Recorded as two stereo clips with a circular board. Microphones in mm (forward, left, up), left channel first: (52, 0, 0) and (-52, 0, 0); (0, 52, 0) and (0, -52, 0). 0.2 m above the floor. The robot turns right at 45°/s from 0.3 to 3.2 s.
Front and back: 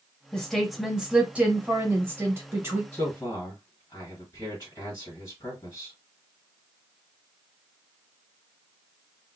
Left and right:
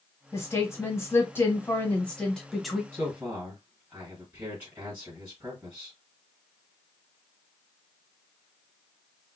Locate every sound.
0.3 s a woman speaking: 75° left, 1.4 m; by 2.8 s 170° right, 1.4 m
2.9 s a man speaking: 50° right, 1.9 m; by 6.0 s 40° right, 1.9 m